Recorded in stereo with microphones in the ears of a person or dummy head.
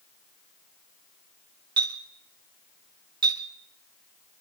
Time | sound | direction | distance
1.8 | a clink | 20° right (ahead or behind) | 1.7 m